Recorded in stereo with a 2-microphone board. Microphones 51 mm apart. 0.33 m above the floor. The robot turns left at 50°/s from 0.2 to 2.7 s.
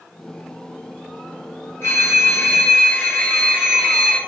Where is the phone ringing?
95° left, 1.1 m; by 4.2 s 50° left, 1.1 m.